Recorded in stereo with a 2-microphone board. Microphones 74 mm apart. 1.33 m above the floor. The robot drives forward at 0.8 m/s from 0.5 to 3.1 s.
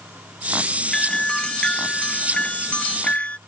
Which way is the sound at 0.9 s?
10° left (ahead or behind).